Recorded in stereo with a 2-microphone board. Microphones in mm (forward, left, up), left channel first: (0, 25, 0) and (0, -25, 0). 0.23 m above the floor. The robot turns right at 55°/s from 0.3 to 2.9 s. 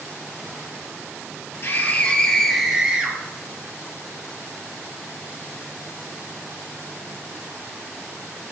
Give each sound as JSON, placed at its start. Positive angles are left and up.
{"t": 1.6, "sound": "a scream", "azimuth_deg": 135, "distance_m": 6.0}